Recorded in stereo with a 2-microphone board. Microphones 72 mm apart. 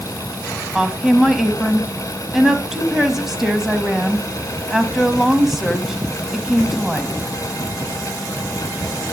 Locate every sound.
0.8 s a woman speaking: 5° right (ahead or behind), 1.5 m